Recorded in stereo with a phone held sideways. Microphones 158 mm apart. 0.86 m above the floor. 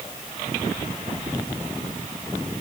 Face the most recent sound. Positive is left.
No sound to turn to.